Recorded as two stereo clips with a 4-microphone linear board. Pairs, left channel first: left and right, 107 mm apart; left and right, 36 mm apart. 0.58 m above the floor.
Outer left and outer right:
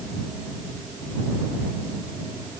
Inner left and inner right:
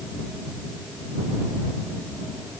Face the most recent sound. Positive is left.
No sound to turn to.